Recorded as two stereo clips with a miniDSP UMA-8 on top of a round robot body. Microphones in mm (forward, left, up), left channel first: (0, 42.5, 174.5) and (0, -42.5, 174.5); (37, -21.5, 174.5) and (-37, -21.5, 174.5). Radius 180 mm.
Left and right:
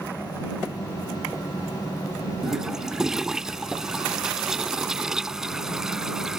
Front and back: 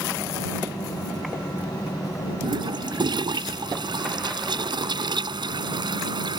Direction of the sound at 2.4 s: 175° right.